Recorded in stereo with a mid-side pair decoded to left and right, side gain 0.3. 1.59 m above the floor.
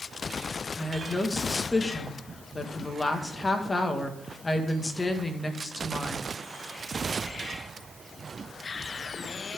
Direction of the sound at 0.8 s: 35° left.